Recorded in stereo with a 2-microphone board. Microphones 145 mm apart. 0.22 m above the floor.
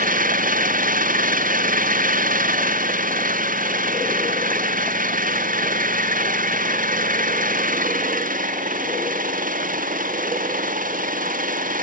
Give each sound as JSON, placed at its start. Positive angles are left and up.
{"t": 0.0, "sound": "an engine running", "side_deg": -70}